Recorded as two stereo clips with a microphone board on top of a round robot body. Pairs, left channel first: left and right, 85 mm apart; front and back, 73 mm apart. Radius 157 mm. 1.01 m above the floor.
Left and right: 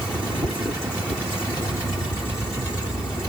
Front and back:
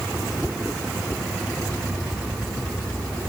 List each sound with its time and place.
Only background noise.